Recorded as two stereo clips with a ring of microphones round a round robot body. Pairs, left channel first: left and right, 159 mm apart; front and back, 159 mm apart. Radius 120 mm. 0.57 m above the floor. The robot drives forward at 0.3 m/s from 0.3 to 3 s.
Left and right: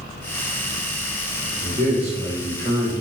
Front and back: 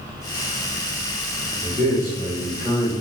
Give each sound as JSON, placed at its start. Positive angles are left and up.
{"t": 1.6, "sound": "a man speaking", "azimuth_deg": -105, "distance_m": 1.5}